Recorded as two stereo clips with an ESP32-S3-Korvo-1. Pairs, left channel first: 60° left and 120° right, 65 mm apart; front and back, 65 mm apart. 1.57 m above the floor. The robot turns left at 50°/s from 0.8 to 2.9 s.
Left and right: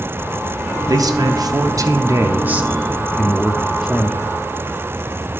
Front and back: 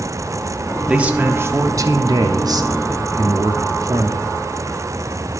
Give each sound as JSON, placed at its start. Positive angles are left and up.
{"t": 0.9, "sound": "a man speaking", "azimuth_deg": -105, "distance_m": 0.7}